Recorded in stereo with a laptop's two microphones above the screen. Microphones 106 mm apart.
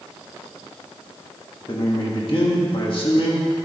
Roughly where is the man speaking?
Left.